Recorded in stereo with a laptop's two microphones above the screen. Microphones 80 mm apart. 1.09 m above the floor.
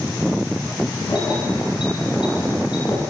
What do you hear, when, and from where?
1.1 s keys jangling: 70° left (ahead or behind), 10 m; by 3.0 s 80° left, 8.5 m